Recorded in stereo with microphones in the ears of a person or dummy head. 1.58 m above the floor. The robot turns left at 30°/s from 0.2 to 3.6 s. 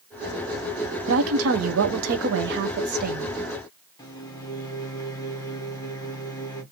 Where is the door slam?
No door slam in this recording.